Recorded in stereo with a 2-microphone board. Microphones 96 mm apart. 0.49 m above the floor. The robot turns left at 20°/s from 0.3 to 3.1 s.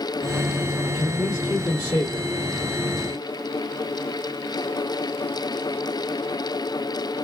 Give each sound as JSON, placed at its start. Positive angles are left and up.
{"t": 0.8, "sound": "a man speaking", "side_deg": 35, "distance_m": 1.7}